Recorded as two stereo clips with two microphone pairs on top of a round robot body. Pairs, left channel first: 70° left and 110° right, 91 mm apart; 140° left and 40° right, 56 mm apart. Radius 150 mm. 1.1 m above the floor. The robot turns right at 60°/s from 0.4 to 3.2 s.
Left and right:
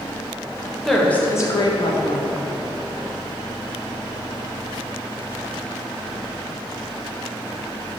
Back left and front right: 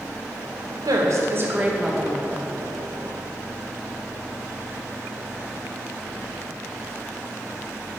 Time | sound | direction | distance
0.8 | a woman speaking | 20° right | 0.9 m